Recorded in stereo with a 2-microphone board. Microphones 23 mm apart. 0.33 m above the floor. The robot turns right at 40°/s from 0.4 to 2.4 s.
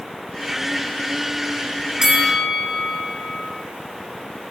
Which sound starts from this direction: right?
A bell, at 2.0 s.